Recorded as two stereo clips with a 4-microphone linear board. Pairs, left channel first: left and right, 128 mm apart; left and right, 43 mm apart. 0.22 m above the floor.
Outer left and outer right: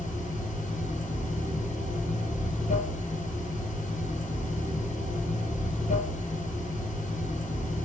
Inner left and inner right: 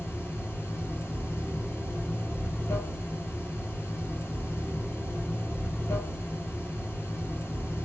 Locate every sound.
0.0 s running water: 80° left, 1.2 m